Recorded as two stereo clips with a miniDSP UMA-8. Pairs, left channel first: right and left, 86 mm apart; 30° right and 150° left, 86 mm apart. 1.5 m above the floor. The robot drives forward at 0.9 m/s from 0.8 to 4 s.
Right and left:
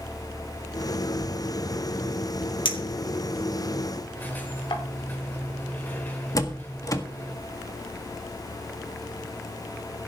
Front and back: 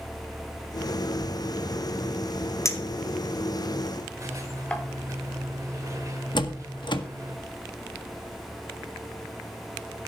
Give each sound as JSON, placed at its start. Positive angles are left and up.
{"t": 2.6, "sound": "a clink", "azimuth_deg": -85, "distance_m": 3.0}
{"t": 4.2, "sound": "a squeak", "azimuth_deg": -160, "distance_m": 3.5}
{"t": 6.3, "sound": "a door slam", "azimuth_deg": -45, "distance_m": 1.6}